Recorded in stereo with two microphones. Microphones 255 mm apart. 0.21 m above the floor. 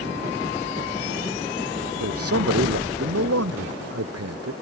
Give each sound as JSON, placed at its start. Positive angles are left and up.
{"t": 2.0, "sound": "a man speaking", "side_deg": -65}